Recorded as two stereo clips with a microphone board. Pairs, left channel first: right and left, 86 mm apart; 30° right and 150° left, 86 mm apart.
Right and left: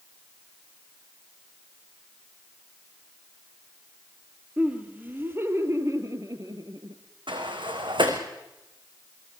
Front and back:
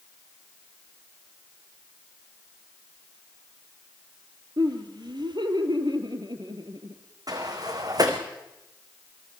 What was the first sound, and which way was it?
Laughter, 160° left.